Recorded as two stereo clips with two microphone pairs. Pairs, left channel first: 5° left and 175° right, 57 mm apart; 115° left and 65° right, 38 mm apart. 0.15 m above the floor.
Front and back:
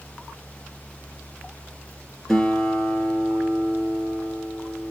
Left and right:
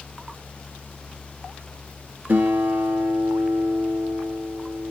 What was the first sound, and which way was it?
A guitar, 75° right.